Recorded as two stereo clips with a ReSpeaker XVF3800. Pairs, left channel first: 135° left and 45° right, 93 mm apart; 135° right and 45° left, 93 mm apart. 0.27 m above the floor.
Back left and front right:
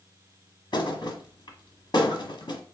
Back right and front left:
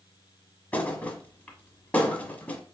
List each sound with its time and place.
0.7 s a thud: 155° left, 1.0 m